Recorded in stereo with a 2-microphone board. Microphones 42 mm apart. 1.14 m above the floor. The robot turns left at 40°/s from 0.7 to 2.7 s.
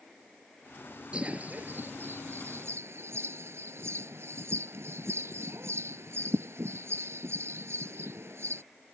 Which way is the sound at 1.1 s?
25° right (ahead or behind).